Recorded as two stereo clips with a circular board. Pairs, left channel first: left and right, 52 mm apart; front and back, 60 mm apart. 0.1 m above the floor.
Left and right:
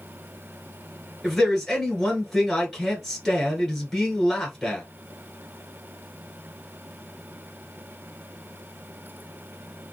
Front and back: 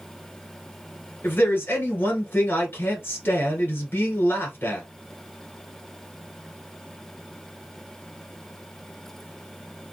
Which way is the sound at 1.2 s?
5° left.